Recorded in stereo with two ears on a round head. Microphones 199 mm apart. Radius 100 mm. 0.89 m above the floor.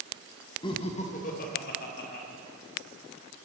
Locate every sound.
0.6 s laughter: 20° left (ahead or behind), 0.9 m; by 2.2 s 45° left (ahead or behind), 2 m